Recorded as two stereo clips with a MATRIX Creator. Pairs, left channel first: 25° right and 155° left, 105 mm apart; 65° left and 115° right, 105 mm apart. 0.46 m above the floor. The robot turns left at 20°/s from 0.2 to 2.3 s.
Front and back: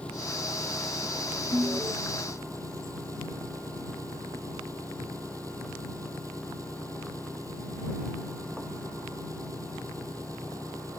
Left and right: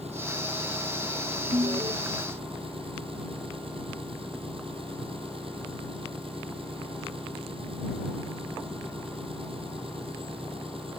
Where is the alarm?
140° right; by 1.9 s 150° right.